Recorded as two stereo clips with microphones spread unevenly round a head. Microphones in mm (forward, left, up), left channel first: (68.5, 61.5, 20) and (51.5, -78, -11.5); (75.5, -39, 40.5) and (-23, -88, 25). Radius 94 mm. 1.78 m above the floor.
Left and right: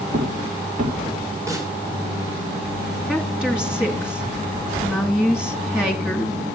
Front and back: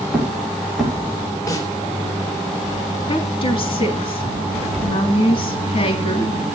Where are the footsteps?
65° right, 7 m.